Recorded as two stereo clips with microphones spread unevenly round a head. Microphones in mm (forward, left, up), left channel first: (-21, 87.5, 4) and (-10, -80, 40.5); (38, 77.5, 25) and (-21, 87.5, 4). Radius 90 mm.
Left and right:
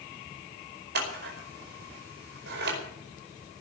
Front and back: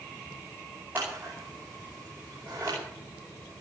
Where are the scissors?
115° right, 5 m.